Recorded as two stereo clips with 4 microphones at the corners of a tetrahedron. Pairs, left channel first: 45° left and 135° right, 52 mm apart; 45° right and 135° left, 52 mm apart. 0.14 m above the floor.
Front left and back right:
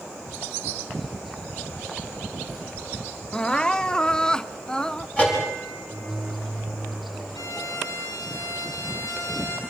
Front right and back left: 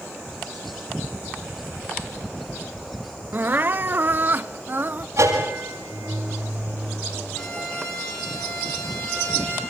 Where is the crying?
115° left, 0.5 m.